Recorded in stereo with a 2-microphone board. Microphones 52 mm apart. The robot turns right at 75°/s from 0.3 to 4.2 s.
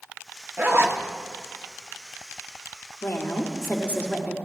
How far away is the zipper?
About 0.9 m.